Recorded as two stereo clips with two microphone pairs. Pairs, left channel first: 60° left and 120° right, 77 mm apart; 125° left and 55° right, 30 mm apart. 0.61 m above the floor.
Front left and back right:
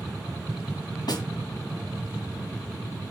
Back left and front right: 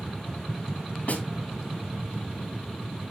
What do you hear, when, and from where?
1.1 s a snare drum: 85° left, 2.5 m